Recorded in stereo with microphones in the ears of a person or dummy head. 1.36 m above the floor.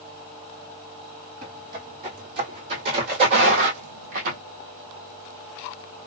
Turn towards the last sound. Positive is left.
turn(degrees=-45)  # may be behind; listen again after turning